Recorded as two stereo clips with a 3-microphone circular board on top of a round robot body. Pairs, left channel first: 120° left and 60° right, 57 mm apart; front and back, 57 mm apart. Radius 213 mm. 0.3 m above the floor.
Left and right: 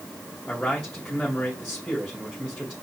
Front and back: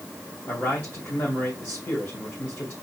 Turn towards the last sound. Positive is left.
turn(degrees=40)